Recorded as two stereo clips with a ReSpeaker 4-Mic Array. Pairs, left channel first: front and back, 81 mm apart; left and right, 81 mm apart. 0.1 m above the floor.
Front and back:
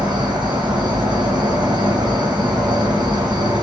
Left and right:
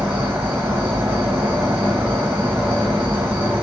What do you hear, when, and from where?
0.0 s an insect: 150° right, 1.1 m